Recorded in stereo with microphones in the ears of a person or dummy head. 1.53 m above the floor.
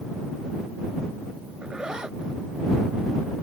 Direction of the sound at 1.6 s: 10° right (ahead or behind).